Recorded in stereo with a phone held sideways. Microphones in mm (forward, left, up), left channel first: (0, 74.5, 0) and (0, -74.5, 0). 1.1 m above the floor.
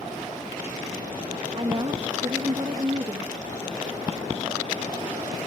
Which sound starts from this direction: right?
A woman speaking, at 1.6 s.